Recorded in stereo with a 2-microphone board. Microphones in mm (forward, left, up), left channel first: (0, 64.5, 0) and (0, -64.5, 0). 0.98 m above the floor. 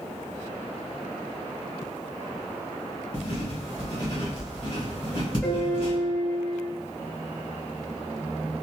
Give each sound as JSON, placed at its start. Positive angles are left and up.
{"t": 3.1, "sound": "writing", "side_deg": 35, "distance_m": 1.3}
{"t": 5.4, "sound": "a piano", "side_deg": 5, "distance_m": 0.9}